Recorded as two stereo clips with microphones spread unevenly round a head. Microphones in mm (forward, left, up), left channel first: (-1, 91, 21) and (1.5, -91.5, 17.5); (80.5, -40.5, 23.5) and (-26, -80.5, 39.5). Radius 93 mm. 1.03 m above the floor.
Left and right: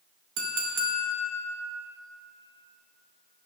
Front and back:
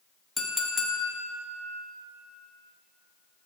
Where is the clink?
70° right, 1.6 m.